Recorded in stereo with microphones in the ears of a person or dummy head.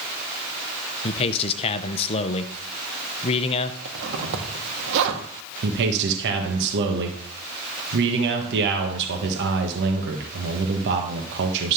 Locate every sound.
1.0 s a man speaking: 35° left (ahead or behind), 0.8 m
3.9 s a zipper: 75° right (ahead or behind), 1.6 m
5.6 s a man speaking: 70° right (ahead or behind), 1.3 m